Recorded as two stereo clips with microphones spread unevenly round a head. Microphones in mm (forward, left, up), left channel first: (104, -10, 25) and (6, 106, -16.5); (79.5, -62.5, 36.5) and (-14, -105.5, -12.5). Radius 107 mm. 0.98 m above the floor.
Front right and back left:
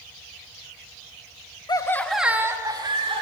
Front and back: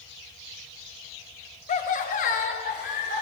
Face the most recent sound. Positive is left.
turn(degrees=75)